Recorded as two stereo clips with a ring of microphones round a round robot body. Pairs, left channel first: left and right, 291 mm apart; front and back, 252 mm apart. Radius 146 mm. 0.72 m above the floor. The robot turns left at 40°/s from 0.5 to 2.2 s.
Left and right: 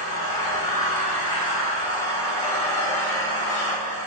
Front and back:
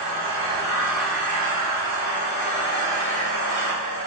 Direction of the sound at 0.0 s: 115° left.